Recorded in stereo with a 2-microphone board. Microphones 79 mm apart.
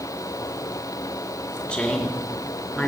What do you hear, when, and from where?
1.7 s a woman speaking: 10° left (ahead or behind), 4 m